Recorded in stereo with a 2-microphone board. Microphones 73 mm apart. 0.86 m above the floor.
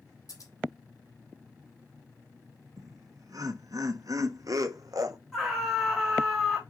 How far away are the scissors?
About 3.5 m.